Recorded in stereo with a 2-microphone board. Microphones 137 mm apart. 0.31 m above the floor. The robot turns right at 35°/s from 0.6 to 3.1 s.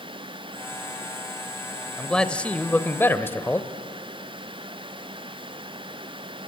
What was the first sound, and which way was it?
A man speaking, 5° left (ahead or behind).